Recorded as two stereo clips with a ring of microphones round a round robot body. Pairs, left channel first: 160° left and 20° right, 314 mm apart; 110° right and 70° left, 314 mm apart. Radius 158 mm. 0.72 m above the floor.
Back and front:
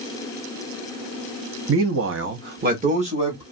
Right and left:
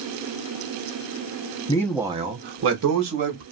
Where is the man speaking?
45° right, 0.7 m; by 3.4 s 50° left, 1.3 m.